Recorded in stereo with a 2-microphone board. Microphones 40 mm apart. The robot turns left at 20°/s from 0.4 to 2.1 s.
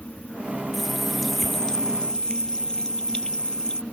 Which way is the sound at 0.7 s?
5° right (ahead or behind).